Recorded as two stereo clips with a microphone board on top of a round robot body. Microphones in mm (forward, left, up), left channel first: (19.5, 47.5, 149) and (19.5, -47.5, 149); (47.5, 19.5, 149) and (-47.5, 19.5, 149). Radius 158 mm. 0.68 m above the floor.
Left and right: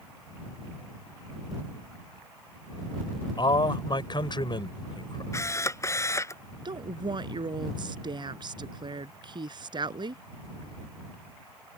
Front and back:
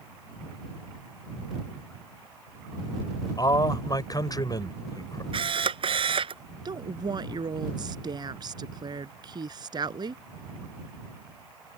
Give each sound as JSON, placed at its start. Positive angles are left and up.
{"t": 3.4, "sound": "a man speaking", "azimuth_deg": 50}
{"t": 5.3, "sound": "a camera shutter", "azimuth_deg": 150}
{"t": 6.7, "sound": "a woman speaking", "azimuth_deg": -135}